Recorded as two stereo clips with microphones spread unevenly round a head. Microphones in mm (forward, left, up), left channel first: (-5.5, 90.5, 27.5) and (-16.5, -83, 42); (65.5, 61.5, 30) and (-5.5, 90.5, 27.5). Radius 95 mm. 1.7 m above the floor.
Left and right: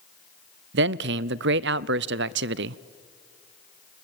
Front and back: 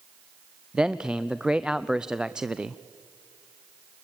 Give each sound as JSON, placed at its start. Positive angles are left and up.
{"t": 0.7, "sound": "a man speaking", "azimuth_deg": -115, "distance_m": 0.5}